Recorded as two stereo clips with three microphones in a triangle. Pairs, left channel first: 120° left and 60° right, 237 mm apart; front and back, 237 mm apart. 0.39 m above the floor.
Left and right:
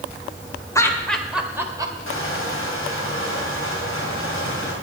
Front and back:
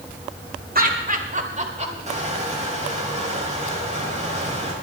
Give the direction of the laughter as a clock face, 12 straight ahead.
6 o'clock.